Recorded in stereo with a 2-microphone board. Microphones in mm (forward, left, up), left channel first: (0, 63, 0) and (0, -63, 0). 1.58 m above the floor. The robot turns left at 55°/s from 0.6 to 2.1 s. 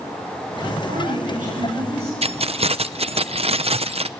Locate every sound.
0.9 s a woman speaking: 60° right, 8 m; by 2.1 s 130° right, 8 m
2.2 s keys jangling: 50° right (ahead or behind), 0.6 m